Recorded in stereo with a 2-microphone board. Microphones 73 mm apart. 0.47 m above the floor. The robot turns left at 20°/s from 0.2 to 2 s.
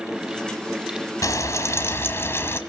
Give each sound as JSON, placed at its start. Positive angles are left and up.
{"t": 1.2, "sound": "frying", "side_deg": 50, "distance_m": 1.8}